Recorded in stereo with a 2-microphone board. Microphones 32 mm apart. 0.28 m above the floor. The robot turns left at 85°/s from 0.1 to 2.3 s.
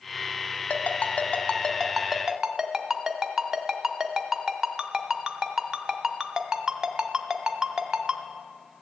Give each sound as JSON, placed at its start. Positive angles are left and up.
{"t": 0.7, "sound": "a ringtone", "side_deg": 55, "distance_m": 0.9}